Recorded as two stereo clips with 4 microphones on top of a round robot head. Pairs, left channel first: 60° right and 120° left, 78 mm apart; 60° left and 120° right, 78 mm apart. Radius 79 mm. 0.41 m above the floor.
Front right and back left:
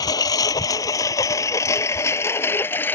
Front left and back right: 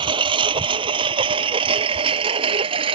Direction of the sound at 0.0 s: 100° right.